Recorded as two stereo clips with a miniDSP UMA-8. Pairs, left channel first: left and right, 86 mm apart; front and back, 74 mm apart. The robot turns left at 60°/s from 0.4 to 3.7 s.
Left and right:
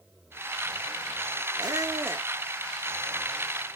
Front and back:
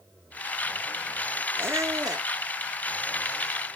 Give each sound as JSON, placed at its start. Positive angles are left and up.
{"t": 1.6, "sound": "a squeak", "azimuth_deg": -120, "distance_m": 0.5}